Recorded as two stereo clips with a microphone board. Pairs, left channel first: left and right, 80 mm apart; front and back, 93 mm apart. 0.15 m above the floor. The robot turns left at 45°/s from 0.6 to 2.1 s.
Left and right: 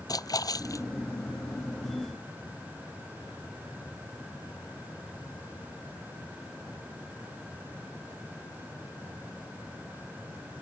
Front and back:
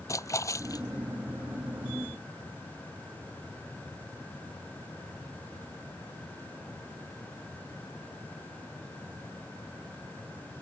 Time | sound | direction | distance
0.1 | a splash | 55° left | ?